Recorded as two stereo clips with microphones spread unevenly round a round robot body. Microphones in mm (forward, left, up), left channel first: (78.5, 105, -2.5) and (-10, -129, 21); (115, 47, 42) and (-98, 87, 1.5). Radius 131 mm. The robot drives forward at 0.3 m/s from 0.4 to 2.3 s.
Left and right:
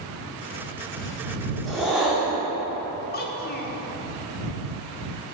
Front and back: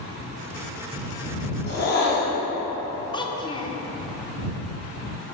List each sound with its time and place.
1.7 s a whoosh: 15° right, 1.5 m
3.1 s a child speaking: 65° left, 0.7 m